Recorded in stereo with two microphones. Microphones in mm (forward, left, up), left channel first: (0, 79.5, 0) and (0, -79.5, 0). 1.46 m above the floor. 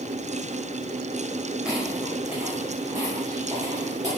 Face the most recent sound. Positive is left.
turn(degrees=-30)  # may be behind; listen again after turning